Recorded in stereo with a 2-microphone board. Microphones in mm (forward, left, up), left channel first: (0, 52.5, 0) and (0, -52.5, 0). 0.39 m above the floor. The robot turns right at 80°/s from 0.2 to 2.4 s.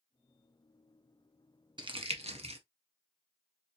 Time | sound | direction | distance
1.8 | crumpling | 45° right (ahead or behind) | 0.8 m